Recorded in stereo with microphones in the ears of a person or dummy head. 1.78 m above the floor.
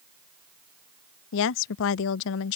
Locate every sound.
1.3 s a woman speaking: 70° left (ahead or behind)